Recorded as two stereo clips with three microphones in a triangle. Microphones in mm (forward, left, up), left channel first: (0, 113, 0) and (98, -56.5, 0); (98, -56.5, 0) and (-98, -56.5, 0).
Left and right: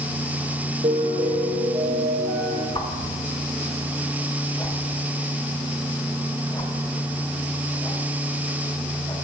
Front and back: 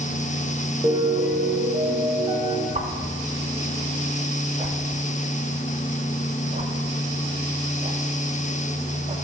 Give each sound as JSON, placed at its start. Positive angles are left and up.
{"t": 0.8, "sound": "a piano", "azimuth_deg": -110, "distance_m": 1.2}
{"t": 2.8, "sound": "a whoosh", "azimuth_deg": 170, "distance_m": 0.5}